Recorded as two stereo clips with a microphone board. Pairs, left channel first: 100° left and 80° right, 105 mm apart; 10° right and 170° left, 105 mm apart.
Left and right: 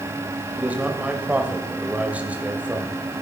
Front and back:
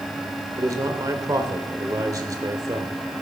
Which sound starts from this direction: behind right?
A man speaking, at 0.6 s.